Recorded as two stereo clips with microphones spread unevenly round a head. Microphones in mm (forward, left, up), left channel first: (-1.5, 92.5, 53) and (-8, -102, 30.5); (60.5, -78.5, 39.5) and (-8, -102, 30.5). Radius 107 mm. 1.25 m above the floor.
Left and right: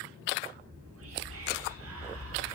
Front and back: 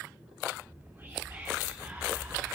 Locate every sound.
0.6 s whispering: 100° right, 3 m